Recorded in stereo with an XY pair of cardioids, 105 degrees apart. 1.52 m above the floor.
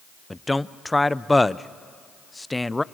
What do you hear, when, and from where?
0.3 s a man speaking: 10° left, 0.6 m